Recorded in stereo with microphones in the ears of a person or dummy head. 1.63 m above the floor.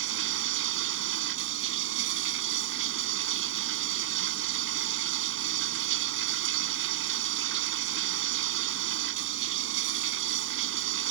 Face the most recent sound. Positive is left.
turn(degrees=-70)  # may be behind; listen again after turning